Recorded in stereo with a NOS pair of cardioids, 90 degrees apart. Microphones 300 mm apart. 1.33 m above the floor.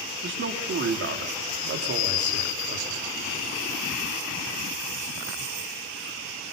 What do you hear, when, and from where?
0.2 s a man speaking: 40° right, 3.5 m; by 3.0 s 60° right, 4.5 m